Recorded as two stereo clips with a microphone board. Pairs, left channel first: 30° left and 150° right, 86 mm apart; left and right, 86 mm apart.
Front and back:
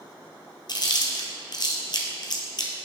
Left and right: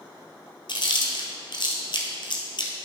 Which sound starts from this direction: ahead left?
Chewing, at 0.7 s.